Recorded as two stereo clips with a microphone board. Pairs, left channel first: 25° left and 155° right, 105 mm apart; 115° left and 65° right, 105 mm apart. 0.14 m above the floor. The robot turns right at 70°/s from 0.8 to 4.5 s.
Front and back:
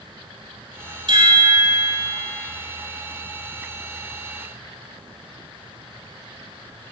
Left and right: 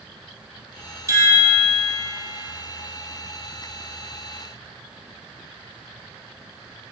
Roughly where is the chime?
Behind right.